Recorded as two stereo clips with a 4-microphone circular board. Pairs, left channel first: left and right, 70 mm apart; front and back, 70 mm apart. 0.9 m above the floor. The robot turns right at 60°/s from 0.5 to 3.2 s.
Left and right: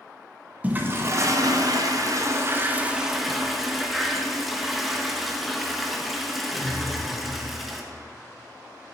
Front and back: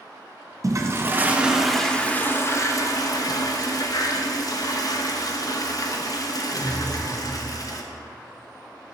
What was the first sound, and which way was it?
A toilet flushing, 155° right.